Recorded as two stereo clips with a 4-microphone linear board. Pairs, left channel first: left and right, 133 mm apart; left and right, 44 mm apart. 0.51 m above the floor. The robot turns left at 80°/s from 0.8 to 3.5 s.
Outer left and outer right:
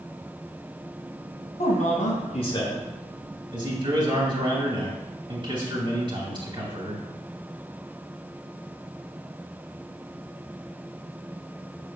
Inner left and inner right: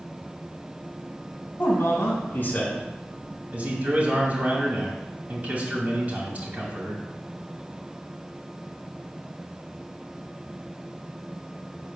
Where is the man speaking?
115° left, 3 m; by 7.0 s 40° right, 3 m.